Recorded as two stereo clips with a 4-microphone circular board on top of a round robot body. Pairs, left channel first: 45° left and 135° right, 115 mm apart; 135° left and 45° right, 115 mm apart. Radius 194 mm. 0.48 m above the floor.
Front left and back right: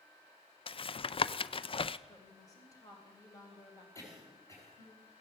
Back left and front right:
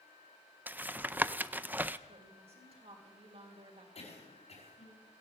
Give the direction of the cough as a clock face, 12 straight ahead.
8 o'clock.